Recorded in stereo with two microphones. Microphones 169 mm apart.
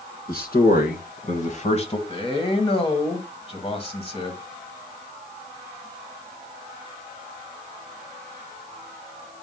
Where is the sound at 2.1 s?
35° left (ahead or behind), 1.6 m.